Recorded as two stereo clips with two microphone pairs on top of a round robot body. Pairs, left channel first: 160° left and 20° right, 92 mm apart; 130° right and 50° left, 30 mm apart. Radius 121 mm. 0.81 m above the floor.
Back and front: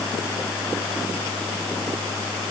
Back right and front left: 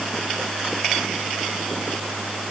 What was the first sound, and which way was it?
Only background noise.